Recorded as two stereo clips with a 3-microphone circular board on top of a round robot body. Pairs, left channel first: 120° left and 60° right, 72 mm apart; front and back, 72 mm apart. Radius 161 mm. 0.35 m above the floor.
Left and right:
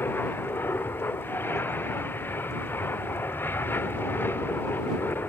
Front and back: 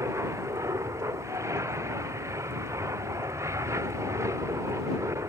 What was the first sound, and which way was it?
An aircraft, 165° left.